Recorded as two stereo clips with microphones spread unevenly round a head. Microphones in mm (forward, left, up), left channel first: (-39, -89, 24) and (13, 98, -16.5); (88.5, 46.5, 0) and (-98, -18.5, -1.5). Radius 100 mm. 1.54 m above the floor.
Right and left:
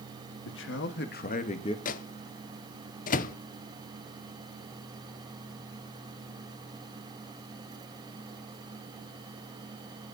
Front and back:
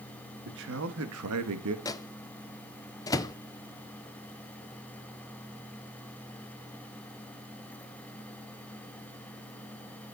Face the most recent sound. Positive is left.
turn(degrees=-55)